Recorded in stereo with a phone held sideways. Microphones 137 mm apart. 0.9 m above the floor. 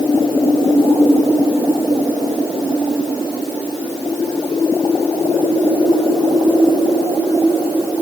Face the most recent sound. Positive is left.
No sound to turn to.